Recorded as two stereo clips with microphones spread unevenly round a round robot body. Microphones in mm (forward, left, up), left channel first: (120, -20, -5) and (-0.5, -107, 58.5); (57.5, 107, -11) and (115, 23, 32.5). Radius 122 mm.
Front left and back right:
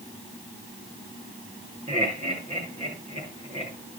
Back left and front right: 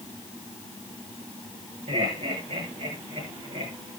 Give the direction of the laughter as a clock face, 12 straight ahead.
3 o'clock.